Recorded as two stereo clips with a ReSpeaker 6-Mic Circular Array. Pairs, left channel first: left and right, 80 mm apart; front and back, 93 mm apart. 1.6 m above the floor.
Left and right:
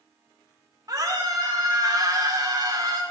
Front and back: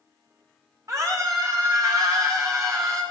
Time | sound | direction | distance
0.9 | a scream | 125° right | 4 m